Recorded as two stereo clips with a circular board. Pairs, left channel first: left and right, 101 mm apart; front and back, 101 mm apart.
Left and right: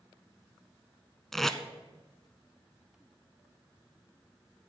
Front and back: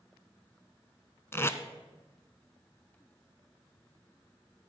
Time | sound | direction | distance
1.3 | tape being pulled | 5° left | 0.7 m